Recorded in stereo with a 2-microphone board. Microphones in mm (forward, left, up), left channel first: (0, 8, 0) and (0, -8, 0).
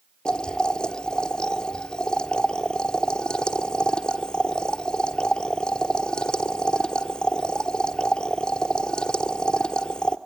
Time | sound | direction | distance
0.2 | boiling | 60° left (ahead or behind) | 1.0 m